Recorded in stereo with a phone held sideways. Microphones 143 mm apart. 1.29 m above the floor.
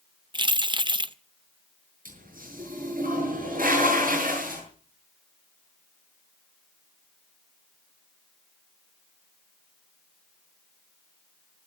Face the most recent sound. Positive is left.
turn(degrees=-80)